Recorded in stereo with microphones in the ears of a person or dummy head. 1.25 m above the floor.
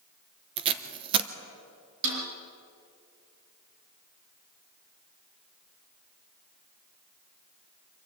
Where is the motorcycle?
I don't hear a motorcycle.